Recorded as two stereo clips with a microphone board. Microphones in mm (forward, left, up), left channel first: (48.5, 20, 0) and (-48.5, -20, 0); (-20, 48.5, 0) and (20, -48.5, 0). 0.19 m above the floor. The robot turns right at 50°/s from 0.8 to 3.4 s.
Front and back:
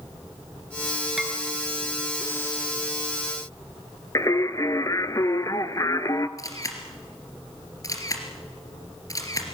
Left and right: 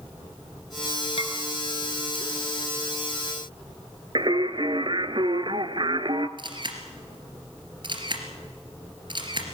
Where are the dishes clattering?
115° left, 2 m; by 1.3 s 125° left, 2 m.